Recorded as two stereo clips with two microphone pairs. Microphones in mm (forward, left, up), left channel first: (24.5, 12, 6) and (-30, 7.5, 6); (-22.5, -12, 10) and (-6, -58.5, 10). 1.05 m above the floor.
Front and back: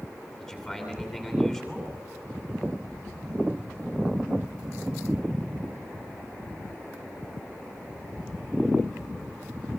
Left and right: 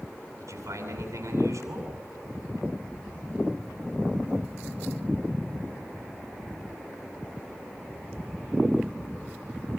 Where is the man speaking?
70° right, 8.5 m.